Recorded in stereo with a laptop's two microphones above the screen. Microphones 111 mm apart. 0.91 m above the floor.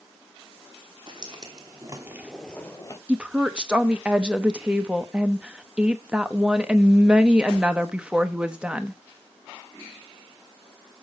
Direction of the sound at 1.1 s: 45° right (ahead or behind).